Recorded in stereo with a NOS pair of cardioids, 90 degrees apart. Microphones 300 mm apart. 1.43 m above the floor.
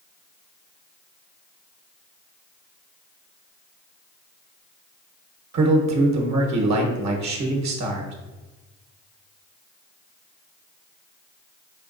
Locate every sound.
5.5 s a man speaking: 65° right, 1.1 m